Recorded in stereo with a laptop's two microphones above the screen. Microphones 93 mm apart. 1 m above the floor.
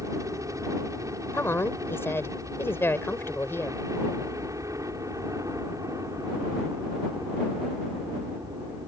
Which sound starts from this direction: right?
A helicopter, at 0.0 s.